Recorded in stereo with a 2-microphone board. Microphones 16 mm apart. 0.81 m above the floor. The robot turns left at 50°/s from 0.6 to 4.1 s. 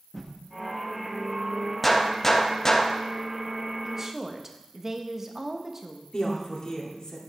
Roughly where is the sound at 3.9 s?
Right.